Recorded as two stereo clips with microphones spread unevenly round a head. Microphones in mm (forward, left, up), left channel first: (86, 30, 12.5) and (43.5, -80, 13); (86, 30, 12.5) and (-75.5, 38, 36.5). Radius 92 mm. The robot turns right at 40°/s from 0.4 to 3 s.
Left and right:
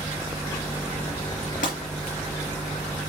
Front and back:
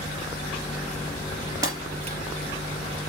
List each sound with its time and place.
1.6 s breaking glass: 115° left, 4 m; by 2.2 s 135° left, 4 m